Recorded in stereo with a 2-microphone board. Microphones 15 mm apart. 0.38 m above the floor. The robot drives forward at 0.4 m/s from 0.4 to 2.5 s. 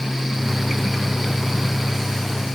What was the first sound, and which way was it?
Only background noise.